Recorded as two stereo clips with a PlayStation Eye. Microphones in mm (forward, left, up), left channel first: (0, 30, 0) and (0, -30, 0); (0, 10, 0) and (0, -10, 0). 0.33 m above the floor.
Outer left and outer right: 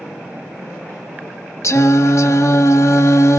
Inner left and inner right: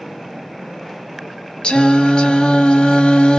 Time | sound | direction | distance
1.6 | singing | 55° left (ahead or behind) | 0.8 m